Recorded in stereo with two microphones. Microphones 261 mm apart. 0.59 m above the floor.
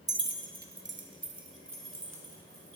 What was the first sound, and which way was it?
Keys jangling, 15° right (ahead or behind).